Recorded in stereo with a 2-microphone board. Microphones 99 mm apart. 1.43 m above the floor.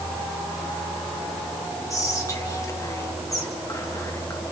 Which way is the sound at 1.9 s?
30° left (ahead or behind).